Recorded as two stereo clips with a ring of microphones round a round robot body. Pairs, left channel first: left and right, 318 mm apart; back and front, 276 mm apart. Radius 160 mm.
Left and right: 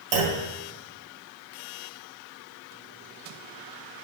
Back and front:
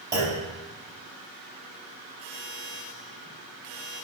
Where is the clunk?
80° right, 1.7 m.